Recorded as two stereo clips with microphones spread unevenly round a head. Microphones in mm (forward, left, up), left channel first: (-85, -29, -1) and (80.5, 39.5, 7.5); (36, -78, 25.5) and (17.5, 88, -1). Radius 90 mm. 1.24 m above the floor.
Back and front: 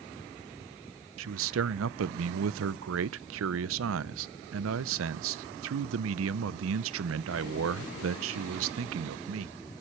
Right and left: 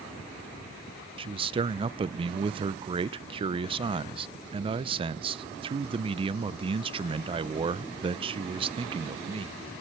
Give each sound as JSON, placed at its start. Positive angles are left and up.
{"t": 1.2, "sound": "a man speaking", "azimuth_deg": 35, "distance_m": 0.5}